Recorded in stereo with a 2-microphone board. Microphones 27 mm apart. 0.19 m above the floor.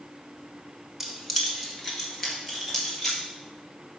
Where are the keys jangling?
10° right (ahead or behind), 1.3 m; by 3.2 s 15° left (ahead or behind), 4 m.